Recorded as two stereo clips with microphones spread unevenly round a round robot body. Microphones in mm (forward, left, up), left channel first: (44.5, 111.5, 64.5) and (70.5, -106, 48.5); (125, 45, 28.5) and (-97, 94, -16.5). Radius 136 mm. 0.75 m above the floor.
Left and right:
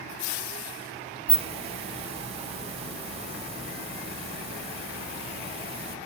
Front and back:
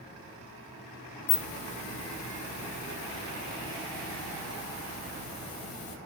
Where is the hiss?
30° right, 0.6 m.